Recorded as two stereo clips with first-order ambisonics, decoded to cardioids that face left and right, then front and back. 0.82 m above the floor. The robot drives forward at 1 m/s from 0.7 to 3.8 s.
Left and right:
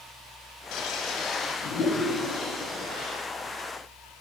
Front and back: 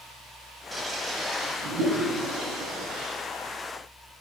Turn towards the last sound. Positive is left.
turn(degrees=165)